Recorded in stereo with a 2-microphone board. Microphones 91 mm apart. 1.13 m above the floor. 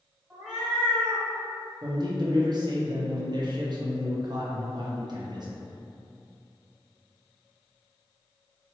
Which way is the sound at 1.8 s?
50° right (ahead or behind).